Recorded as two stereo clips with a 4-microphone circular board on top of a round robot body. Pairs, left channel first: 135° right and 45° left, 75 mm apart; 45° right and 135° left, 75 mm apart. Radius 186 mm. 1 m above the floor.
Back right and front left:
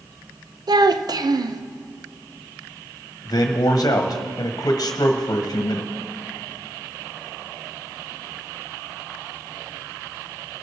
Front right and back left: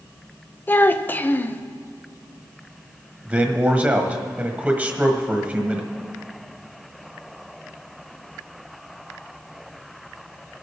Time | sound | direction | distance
0.7 | a child speaking | 20° left | 0.7 m
3.2 | a man speaking | 160° right | 1.5 m